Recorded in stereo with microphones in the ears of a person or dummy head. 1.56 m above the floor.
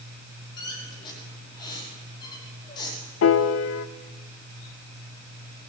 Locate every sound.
0.6 s a squeak: 30° left (ahead or behind), 5 m
3.2 s a piano: 75° left (ahead or behind), 0.6 m